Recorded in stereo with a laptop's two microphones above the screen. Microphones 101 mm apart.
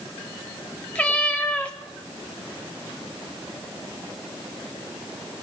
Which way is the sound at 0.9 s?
10° left (ahead or behind).